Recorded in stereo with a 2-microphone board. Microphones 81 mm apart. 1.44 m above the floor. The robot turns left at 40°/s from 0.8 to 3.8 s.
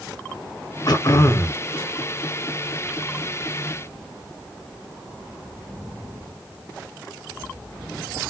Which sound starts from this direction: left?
Throat clearing, at 0.9 s.